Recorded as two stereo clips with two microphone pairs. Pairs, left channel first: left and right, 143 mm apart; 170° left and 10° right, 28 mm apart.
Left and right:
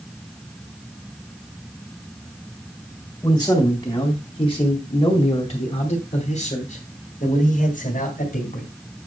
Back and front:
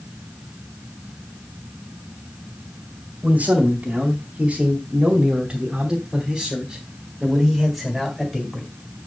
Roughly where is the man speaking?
Ahead.